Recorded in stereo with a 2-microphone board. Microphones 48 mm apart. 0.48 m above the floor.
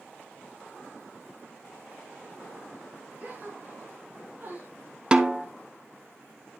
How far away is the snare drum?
About 0.6 m.